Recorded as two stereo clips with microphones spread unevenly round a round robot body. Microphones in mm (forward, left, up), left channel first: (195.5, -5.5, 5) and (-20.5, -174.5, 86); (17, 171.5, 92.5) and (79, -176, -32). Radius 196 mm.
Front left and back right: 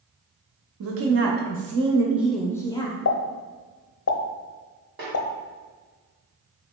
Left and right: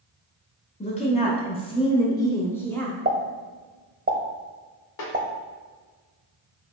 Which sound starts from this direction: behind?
A woman speaking, at 0.8 s.